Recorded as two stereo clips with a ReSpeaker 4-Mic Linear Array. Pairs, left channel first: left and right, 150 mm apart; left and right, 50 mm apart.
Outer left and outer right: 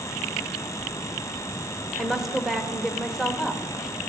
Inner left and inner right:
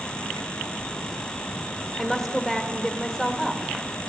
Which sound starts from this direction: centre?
A woman speaking, at 2.0 s.